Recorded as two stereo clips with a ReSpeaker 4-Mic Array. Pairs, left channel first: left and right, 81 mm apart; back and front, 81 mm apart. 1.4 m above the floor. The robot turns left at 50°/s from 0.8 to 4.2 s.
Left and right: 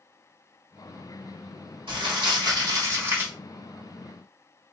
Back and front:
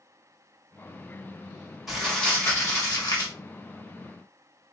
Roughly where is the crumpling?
Right.